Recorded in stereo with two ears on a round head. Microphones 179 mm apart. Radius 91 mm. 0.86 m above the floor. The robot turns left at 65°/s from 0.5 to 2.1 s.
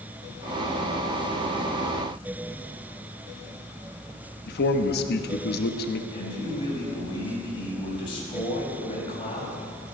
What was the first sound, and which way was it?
A man speaking, 55° left (ahead or behind).